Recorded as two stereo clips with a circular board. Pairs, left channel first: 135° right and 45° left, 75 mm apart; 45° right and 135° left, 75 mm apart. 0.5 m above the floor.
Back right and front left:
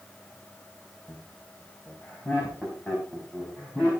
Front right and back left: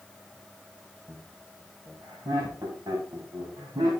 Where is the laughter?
175° left, 3 m; by 3.9 s 150° left, 4.5 m.